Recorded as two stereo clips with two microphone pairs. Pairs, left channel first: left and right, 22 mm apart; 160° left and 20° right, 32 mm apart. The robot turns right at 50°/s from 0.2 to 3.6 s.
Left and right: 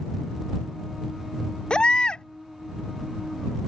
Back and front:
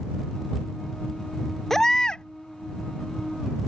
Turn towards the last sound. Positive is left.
turn(degrees=180)